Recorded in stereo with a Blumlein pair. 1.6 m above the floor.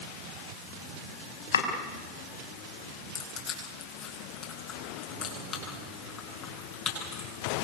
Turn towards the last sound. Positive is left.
turn(degrees=25)